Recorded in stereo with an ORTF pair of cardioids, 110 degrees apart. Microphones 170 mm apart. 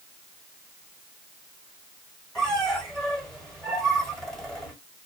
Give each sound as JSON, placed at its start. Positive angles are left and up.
{"t": 2.4, "sound": "a squeak", "azimuth_deg": 5, "distance_m": 1.3}